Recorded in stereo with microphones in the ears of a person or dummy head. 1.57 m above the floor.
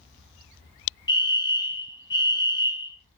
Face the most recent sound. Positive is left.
turn(degrees=25)  # may be behind; listen again after turning